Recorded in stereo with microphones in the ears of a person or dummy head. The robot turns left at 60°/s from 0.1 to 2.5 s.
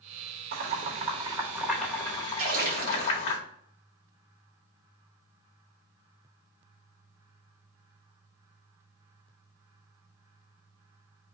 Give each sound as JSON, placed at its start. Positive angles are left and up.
{"t": 0.5, "sound": "boiling", "side_deg": -45, "distance_m": 0.8}
{"t": 2.4, "sound": "a splash", "side_deg": -35, "distance_m": 1.7}